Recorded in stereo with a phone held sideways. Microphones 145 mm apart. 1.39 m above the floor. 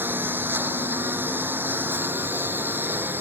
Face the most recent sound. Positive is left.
turn(degrees=-15)  # may be behind; listen again after turning